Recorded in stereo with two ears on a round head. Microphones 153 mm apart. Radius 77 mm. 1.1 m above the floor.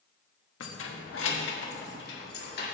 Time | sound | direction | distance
0.6 | keys jangling | 90° left | 1.3 m